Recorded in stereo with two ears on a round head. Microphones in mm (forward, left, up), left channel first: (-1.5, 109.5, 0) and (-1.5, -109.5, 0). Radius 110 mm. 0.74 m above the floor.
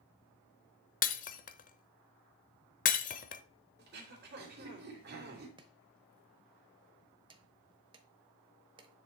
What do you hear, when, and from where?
1.0 s breaking glass: 35° left (ahead or behind), 0.8 m
3.8 s throat clearing: 45° right (ahead or behind), 2.5 m
5.6 s chopping: 20° right (ahead or behind), 1.0 m